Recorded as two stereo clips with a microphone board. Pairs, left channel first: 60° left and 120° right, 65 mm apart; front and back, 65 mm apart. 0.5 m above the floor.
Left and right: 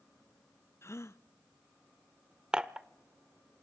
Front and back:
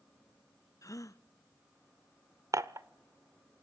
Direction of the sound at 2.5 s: 165° left.